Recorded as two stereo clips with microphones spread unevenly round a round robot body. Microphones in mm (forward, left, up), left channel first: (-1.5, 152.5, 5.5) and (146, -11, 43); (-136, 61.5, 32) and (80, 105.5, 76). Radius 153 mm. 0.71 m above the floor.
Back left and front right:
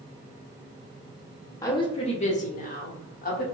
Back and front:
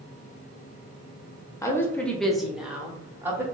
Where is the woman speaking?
160° left, 0.6 m; by 3.4 s 95° left, 1.2 m.